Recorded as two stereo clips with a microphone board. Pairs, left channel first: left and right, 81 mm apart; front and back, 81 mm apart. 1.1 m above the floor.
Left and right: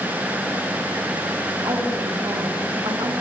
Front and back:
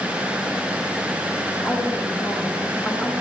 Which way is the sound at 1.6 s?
60° right.